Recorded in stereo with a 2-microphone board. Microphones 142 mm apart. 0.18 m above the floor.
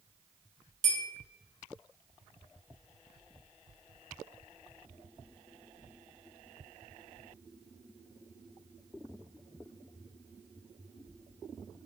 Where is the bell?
60° right (ahead or behind), 0.9 m.